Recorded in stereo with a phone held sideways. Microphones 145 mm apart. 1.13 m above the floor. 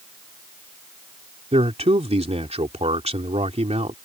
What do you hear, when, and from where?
1.5 s a man speaking: 40° right (ahead or behind)